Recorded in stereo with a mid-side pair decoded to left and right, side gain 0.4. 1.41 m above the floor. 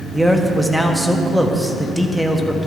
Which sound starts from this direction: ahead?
A man speaking, at 0.1 s.